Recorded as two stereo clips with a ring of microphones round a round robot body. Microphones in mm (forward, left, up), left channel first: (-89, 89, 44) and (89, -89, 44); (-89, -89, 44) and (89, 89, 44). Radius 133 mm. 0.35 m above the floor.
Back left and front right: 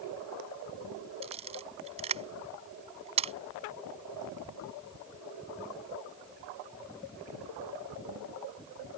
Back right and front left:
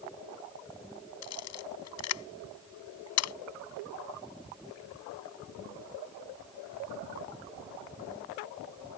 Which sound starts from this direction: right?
A camera shutter, at 1.2 s.